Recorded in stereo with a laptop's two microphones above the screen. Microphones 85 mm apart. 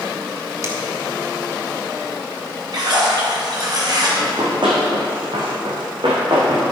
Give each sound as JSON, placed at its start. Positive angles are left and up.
{"t": 0.6, "sound": "a finger snap", "side_deg": -35, "distance_m": 1.4}
{"t": 2.7, "sound": "a splash", "side_deg": -55, "distance_m": 3.0}
{"t": 4.2, "sound": "running footsteps", "side_deg": -60, "distance_m": 3.0}